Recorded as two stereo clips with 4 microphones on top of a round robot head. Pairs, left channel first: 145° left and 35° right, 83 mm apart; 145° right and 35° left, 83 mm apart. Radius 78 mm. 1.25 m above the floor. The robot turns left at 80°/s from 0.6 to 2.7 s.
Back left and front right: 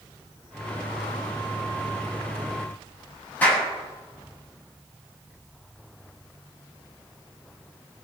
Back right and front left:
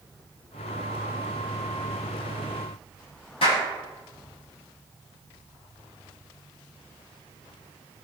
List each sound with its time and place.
3.4 s a clap: 140° right, 8 m